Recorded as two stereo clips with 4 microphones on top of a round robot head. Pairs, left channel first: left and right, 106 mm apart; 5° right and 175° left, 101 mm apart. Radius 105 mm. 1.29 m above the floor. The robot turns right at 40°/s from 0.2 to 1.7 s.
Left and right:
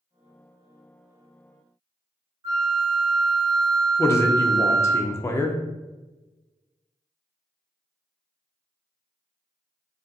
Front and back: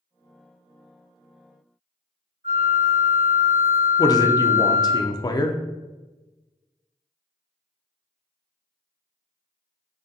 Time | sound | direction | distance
2.4 | a flute | 150° right | 1.3 m
4.0 | a man speaking | 35° left | 0.5 m